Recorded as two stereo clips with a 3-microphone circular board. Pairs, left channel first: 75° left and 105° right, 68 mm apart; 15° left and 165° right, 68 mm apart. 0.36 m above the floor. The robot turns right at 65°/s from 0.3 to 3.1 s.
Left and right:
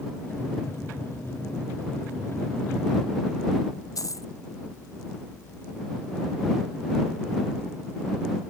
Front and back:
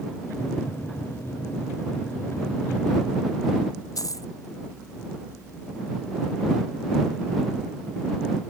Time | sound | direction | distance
4.0 | a dropped coin | 45° left | ?